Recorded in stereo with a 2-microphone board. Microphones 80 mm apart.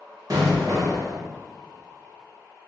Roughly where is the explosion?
Right.